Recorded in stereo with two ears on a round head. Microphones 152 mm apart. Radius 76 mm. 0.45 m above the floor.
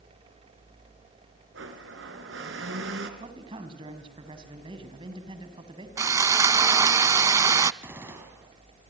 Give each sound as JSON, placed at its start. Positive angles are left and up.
{"t": 1.5, "sound": "a blender", "side_deg": -85, "distance_m": 4.0}
{"t": 3.2, "sound": "a man speaking", "side_deg": -30, "distance_m": 4.0}
{"t": 6.0, "sound": "sawing", "side_deg": -20, "distance_m": 0.5}
{"t": 7.8, "sound": "a gunshot", "side_deg": -15, "distance_m": 4.5}